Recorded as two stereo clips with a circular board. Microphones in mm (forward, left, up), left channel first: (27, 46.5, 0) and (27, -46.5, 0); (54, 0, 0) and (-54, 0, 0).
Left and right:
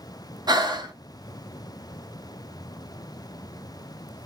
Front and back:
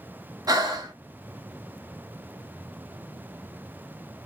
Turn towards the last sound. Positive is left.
turn(degrees=-130)